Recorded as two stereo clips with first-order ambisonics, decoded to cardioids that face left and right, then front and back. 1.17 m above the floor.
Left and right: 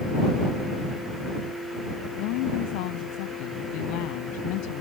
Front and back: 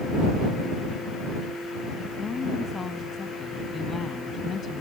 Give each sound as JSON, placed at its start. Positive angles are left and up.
{"t": 2.2, "sound": "a woman speaking", "azimuth_deg": 75}